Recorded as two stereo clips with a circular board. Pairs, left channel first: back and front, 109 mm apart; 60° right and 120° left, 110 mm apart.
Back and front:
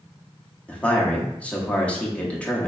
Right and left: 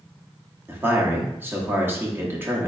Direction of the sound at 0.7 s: 125° left.